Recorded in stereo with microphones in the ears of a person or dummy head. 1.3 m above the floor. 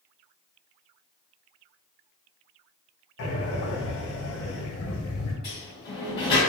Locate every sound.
3.2 s breathing: 60° left (ahead or behind), 0.9 m
5.4 s a sliding door: 20° left (ahead or behind), 1.1 m